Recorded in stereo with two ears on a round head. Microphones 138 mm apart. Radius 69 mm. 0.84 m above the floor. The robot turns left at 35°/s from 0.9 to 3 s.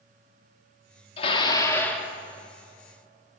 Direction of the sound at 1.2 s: 35° left.